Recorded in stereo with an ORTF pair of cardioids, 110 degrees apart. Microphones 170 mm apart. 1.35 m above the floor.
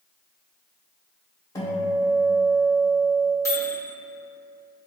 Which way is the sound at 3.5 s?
15° left.